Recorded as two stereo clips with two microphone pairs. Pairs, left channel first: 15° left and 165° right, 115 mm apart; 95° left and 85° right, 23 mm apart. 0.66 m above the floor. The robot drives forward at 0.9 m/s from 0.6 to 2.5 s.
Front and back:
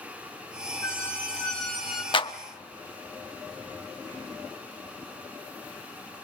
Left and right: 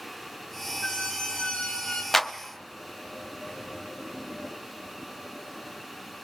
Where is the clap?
25° left, 1.0 m; by 2.3 s 30° left, 0.9 m.